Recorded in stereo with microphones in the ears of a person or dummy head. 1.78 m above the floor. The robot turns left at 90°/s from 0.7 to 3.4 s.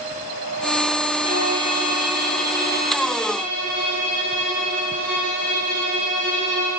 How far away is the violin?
About 6.5 m.